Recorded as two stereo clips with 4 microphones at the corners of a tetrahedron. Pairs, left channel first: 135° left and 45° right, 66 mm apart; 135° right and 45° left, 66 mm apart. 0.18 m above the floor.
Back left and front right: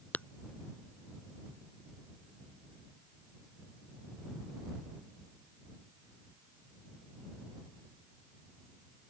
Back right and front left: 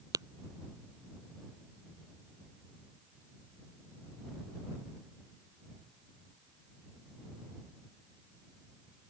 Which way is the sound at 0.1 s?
70° left.